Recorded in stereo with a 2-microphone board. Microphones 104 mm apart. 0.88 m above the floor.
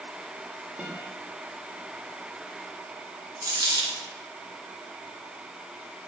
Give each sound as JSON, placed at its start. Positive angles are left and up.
{"t": 0.8, "sound": "a guitar", "side_deg": -15, "distance_m": 1.4}
{"t": 3.4, "sound": "a dropped coin", "side_deg": -45, "distance_m": 1.9}